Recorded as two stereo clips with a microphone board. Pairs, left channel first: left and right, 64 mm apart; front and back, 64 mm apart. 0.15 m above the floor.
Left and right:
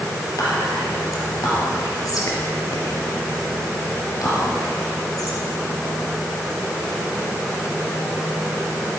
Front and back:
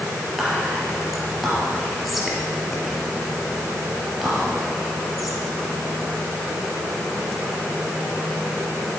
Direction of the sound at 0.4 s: 90° left.